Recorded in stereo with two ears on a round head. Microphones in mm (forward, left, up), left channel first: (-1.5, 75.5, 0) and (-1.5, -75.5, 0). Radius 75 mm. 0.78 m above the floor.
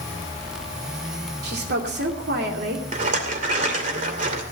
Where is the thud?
No thud in this recording.